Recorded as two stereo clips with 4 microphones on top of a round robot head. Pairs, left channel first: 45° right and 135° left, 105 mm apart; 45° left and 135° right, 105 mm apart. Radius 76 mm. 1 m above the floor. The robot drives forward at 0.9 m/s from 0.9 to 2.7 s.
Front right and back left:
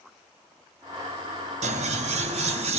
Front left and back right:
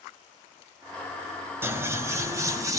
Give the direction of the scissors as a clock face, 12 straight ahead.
7 o'clock.